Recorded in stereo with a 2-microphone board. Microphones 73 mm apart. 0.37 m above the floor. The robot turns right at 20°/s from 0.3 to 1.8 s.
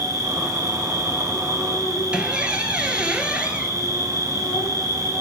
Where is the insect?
95° left, 3.5 m; by 5.2 s 125° left, 3.5 m.